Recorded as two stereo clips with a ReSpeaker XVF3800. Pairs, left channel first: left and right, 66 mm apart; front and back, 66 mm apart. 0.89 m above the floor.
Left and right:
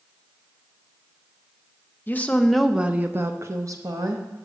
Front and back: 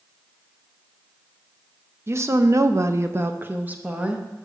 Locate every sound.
2.1 s a woman speaking: 145° left, 0.6 m; by 4.5 s 105° right, 1.1 m